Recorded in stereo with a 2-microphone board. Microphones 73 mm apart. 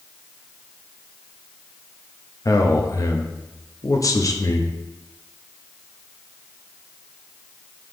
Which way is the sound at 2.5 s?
50° left (ahead or behind).